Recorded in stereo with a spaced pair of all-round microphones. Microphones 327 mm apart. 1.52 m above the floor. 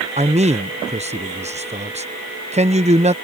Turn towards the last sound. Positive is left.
turn(degrees=-20)  # may be behind; listen again after turning